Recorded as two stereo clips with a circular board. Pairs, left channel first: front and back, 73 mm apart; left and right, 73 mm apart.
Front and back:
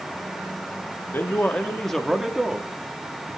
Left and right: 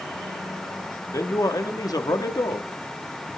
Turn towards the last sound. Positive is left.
turn(degrees=125)